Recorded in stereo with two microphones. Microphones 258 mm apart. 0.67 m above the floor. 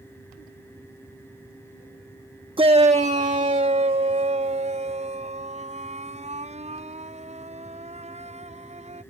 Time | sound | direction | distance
2.6 | a shout | 20° right (ahead or behind) | ?